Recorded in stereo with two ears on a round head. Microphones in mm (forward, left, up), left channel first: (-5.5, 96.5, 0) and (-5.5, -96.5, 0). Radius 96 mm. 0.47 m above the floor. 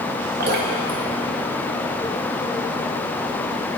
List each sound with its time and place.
0.4 s dripping: 50° right (ahead or behind), 2.5 m